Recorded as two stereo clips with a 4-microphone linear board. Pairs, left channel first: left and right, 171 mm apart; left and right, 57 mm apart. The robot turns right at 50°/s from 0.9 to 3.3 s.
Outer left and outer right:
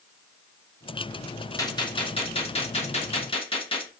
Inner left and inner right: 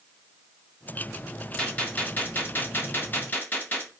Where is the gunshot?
30° left, 0.7 m; by 3.9 s 120° left, 0.7 m.